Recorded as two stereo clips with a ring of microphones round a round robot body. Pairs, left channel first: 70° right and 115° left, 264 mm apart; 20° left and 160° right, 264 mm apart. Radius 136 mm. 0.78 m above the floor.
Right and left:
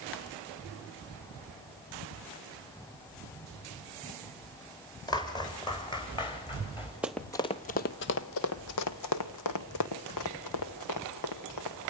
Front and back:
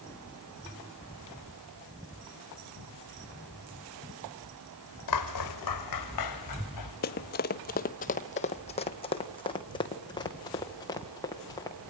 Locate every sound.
5.1 s footsteps: 10° left, 2.5 m; by 6.9 s 5° left, 4.5 m
7.0 s running footsteps: 30° left, 0.8 m; by 11.8 s 55° right, 3.5 m